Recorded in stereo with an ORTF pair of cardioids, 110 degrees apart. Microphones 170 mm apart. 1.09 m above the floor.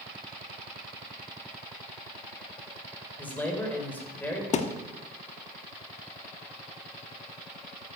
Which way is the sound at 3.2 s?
10° left.